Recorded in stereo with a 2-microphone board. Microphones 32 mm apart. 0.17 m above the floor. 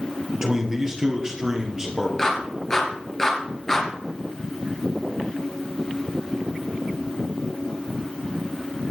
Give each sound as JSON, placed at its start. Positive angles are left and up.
{"t": 0.3, "sound": "a man speaking", "side_deg": -20, "distance_m": 3.0}
{"t": 2.2, "sound": "a clap", "side_deg": 20, "distance_m": 3.0}